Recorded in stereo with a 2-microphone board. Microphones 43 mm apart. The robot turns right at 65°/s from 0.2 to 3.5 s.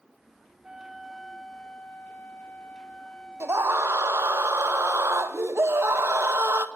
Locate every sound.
0.6 s a flute: 25° right, 1.5 m; by 4.4 s 160° left, 1.5 m
3.4 s a scream: 85° right, 2 m; by 6.7 s 80° right, 2 m